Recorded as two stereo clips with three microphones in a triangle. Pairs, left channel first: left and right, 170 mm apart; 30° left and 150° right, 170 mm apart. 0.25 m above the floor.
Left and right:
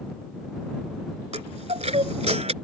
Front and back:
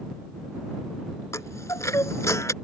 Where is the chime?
45° right.